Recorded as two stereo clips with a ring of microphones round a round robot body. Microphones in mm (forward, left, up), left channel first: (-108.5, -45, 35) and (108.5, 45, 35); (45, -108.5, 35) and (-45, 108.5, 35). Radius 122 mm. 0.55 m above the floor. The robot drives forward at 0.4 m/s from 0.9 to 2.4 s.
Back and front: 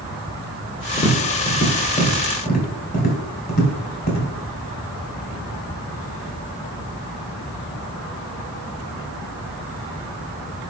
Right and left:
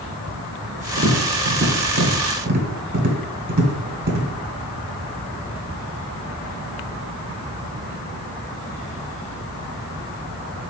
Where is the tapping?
145° left, 1.4 m; by 4.3 s 155° left, 1.9 m.